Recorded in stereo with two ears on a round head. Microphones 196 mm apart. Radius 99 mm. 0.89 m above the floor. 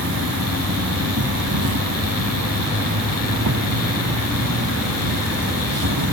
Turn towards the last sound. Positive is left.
turn(degrees=-75)  # may be behind; listen again after turning